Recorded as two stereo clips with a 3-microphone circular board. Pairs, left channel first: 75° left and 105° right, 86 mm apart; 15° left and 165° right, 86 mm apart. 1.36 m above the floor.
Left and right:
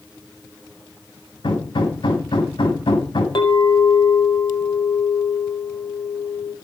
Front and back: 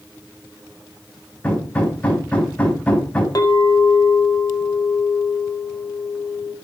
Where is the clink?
60° left, 4.5 m.